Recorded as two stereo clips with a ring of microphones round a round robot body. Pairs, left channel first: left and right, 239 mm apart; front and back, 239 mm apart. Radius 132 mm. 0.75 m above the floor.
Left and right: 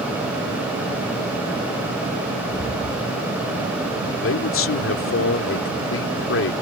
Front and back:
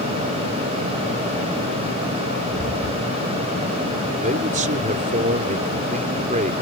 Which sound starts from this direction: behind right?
Footsteps, at 2.5 s.